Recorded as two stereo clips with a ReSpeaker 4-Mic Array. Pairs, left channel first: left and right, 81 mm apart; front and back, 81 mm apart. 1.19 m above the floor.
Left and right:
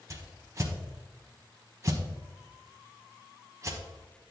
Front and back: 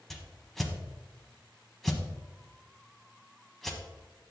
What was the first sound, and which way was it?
A whoosh, 85° right.